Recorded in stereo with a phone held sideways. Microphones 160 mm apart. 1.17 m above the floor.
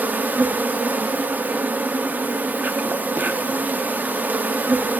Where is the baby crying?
No baby crying in this recording.